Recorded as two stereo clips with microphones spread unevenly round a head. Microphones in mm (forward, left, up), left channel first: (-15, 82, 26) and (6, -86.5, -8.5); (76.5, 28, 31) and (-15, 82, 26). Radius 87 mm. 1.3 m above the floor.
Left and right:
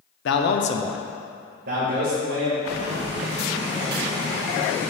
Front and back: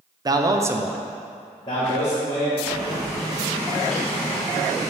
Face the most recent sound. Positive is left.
turn(degrees=-115)